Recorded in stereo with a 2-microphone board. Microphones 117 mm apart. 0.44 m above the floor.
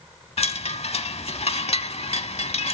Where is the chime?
60° left (ahead or behind), 0.6 m.